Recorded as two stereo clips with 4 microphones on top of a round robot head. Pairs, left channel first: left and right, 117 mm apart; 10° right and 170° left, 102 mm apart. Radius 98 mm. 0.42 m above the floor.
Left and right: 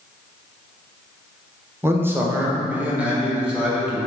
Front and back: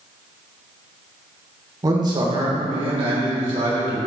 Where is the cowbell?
I don't hear a cowbell.